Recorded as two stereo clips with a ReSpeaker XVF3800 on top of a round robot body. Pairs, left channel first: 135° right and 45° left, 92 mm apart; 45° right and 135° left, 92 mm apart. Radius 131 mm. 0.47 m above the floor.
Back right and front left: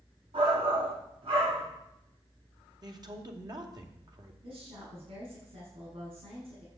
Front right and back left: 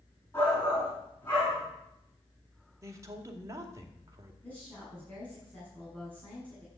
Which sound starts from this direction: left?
A man speaking, at 2.8 s.